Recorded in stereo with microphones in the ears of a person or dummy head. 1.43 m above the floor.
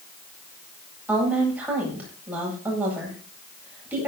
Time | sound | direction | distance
1.1 | a woman speaking | 15° right (ahead or behind) | 8.5 m